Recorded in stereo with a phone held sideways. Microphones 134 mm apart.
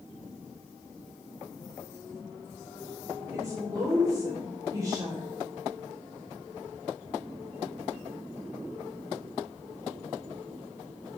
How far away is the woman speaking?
About 3 m.